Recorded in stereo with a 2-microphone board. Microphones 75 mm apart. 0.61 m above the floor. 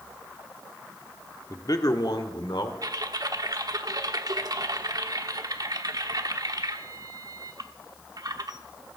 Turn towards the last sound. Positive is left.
turn(degrees=-55)  # may be behind; listen again after turning